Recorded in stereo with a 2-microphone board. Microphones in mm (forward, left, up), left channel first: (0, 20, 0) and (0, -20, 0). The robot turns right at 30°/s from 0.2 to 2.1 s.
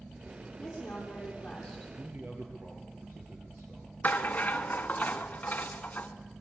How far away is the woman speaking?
About 8 m.